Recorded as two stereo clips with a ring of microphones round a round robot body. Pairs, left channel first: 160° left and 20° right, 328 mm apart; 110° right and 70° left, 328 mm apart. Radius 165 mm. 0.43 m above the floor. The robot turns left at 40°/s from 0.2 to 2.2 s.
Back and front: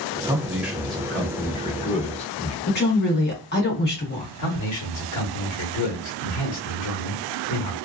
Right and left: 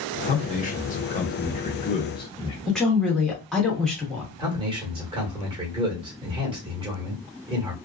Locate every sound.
0.2 s a man speaking: 90° right, 0.7 m; by 2.6 s 165° right, 0.7 m
2.7 s a woman speaking: 160° left, 1.3 m
4.4 s a man speaking: 140° left, 1.3 m